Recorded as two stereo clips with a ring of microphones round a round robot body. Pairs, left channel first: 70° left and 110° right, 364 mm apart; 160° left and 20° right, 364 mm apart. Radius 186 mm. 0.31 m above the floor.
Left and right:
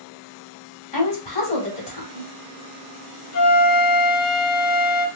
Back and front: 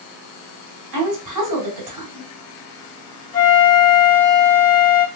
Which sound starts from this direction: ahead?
A woman speaking, at 0.9 s.